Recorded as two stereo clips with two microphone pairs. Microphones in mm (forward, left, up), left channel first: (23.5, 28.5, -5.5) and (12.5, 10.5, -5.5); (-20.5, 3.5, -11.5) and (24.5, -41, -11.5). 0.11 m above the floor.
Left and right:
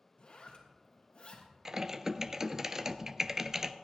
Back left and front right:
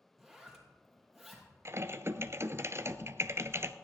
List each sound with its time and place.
0.2 s a zipper: 45° left, 2.5 m
1.6 s typing on a keyboard: 60° right, 0.6 m